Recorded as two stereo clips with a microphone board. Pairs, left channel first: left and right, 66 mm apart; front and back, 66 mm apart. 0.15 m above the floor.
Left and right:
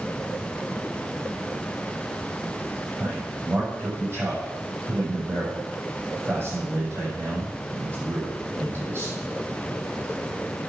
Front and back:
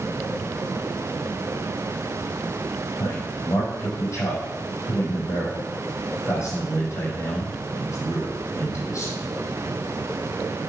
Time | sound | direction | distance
3.0 | a man speaking | 40° right | 5.5 m